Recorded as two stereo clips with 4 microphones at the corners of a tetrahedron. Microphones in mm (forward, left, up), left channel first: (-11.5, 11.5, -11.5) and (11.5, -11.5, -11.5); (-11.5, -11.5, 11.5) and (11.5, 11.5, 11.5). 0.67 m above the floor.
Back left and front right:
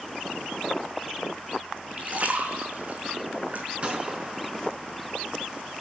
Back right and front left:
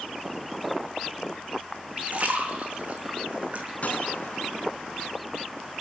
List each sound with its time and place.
2.0 s a splash: straight ahead, 5 m
3.8 s a gunshot: 95° right, 5 m